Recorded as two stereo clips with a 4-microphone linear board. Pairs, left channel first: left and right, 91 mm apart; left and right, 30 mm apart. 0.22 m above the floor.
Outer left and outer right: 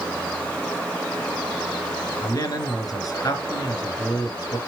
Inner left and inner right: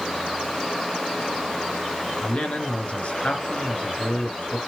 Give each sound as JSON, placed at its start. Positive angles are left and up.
{"t": 2.2, "sound": "a man speaking", "side_deg": 40, "distance_m": 3.0}